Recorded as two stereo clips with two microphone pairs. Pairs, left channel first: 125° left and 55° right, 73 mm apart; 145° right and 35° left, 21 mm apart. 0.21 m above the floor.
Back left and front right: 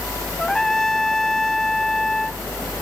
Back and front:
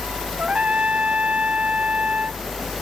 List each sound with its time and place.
0.4 s a trumpet: 40° left